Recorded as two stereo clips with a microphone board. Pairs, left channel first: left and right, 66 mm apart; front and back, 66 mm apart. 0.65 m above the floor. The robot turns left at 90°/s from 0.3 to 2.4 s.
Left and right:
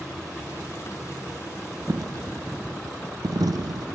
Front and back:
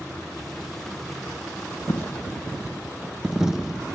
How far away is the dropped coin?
About 0.5 m.